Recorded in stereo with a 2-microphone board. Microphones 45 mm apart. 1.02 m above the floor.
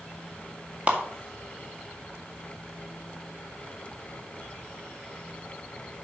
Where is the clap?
30° right (ahead or behind), 2 m.